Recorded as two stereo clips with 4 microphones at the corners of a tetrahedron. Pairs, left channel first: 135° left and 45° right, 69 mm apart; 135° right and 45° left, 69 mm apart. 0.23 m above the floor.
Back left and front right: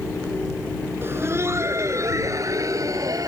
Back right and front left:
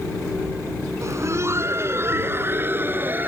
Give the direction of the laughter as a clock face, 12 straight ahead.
12 o'clock.